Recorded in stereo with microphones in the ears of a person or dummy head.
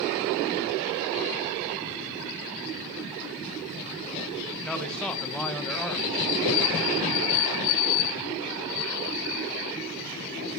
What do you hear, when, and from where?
4.7 s a man speaking: 5° left (ahead or behind), 1.9 m